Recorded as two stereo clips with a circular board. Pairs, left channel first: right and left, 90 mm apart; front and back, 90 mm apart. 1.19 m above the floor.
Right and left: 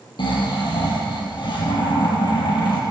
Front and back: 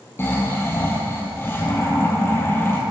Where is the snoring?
60° right, 5 m.